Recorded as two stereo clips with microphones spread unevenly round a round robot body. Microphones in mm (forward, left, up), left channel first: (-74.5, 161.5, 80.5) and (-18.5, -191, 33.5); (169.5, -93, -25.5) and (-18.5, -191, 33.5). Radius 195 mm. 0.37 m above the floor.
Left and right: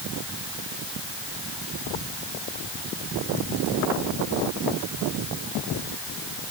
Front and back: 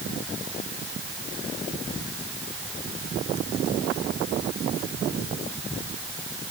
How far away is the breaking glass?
I don't hear breaking glass.